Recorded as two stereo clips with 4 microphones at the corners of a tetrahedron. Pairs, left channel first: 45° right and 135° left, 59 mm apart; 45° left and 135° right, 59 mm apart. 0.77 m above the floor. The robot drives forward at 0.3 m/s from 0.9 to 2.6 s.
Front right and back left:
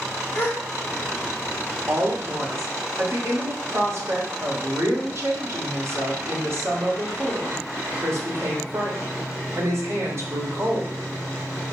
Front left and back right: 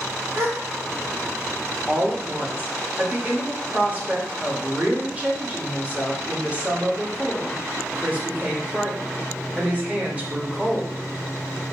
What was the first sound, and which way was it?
A gasp, 95° right.